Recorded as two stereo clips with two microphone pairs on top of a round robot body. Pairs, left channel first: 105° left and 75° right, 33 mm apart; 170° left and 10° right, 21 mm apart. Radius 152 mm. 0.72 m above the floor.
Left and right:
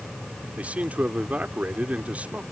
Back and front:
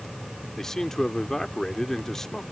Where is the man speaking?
125° right.